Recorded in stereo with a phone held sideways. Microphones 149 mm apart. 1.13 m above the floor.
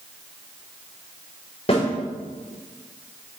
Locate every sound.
1.7 s a snare drum: 45° left (ahead or behind), 3.5 m